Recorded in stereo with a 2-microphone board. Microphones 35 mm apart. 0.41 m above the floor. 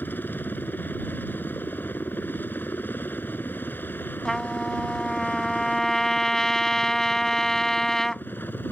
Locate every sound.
0.0 s a helicopter: 60° left (ahead or behind); by 8.7 s 65° left (ahead or behind)
4.2 s a trumpet: 15° left (ahead or behind)